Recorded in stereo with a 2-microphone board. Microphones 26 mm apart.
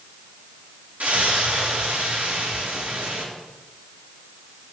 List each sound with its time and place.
1.0 s a splash: 70° right (ahead or behind), 2.5 m